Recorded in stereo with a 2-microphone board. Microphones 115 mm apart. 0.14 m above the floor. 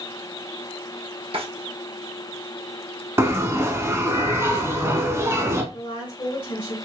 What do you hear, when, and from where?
1.3 s a drawer: 55° right (ahead or behind), 1.0 m
3.2 s a bell: 25° right (ahead or behind), 0.7 m
5.7 s a woman speaking: 40° left (ahead or behind), 1.8 m